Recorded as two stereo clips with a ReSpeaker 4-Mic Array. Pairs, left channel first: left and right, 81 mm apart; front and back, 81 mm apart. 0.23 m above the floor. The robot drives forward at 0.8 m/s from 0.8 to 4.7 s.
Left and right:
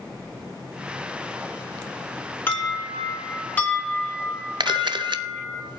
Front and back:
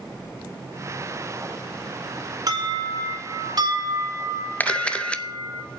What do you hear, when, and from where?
2.5 s an alarm: 150° left, 3.5 m; by 5.6 s 160° left, 5 m
4.6 s a camera shutter: 70° right, 0.6 m; by 5.8 s 75° right, 0.6 m